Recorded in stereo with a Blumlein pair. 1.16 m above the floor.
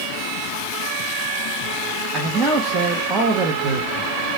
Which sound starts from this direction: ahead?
A man speaking, at 2.1 s.